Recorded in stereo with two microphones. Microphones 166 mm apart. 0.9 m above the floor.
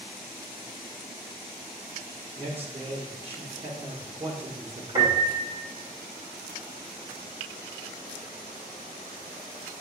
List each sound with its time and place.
2.4 s a man speaking: 35° right (ahead or behind), 1.3 m
5.0 s a piano: 30° right (ahead or behind), 2.0 m